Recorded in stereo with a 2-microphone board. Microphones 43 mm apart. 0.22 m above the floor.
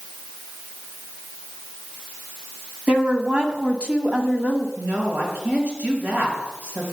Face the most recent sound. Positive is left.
turn(degrees=-50)  # may be behind; listen again after turning